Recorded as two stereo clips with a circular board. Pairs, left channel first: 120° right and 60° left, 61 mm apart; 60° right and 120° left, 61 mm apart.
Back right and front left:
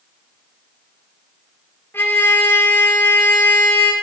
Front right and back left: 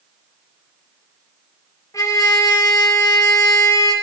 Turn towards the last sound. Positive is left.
turn(degrees=-70)